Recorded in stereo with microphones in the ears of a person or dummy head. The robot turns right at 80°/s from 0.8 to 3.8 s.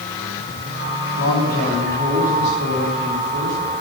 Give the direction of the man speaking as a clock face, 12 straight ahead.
8 o'clock.